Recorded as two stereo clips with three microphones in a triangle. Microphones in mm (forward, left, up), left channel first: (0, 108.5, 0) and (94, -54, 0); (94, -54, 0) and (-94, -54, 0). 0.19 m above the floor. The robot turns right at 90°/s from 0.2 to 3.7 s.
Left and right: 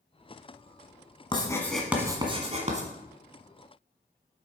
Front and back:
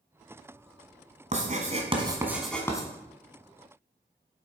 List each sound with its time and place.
1.3 s writing: 165° left, 1.5 m; by 2.9 s 50° right, 1.5 m